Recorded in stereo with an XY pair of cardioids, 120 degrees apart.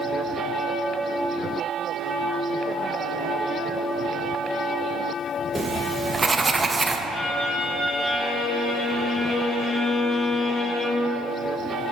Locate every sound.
5.5 s writing: 20° right, 0.5 m
7.1 s a violin: 55° left, 1.7 m